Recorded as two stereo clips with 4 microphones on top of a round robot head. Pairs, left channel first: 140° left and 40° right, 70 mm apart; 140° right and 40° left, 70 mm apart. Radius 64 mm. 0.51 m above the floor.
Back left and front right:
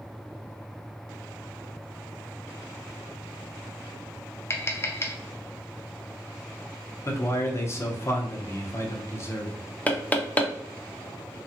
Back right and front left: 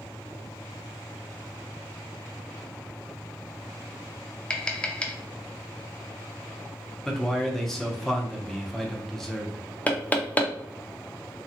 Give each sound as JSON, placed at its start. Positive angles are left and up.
{"t": 4.5, "sound": "tapping", "azimuth_deg": 155, "distance_m": 0.6}
{"t": 7.0, "sound": "a man speaking", "azimuth_deg": 135, "distance_m": 0.8}
{"t": 9.9, "sound": "knocking", "azimuth_deg": 180, "distance_m": 0.6}